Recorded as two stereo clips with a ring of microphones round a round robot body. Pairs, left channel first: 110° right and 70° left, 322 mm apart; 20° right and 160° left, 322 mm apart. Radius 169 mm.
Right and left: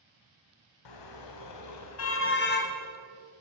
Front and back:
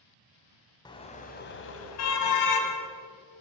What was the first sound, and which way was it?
A car horn, 100° right.